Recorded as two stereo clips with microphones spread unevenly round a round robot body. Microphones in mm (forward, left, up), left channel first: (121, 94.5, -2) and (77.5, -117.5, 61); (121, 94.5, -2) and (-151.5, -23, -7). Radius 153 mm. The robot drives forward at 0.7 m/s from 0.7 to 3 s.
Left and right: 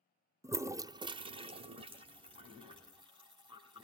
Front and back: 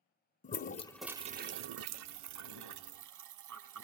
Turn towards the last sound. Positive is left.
turn(degrees=180)